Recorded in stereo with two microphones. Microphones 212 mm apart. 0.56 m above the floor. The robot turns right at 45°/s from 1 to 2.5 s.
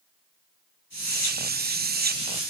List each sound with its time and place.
Only background noise.